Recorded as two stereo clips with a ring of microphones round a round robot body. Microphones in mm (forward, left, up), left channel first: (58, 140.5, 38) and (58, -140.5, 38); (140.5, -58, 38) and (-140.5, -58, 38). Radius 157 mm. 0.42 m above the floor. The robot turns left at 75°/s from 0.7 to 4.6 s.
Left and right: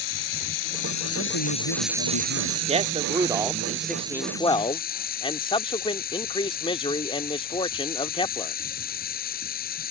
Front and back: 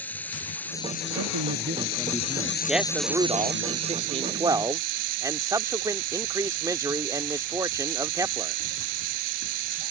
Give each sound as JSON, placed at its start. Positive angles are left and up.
{"t": 0.0, "sound": "running water", "azimuth_deg": 85}
{"t": 1.1, "sound": "a man speaking", "azimuth_deg": 155}
{"t": 2.7, "sound": "a man speaking", "azimuth_deg": -90}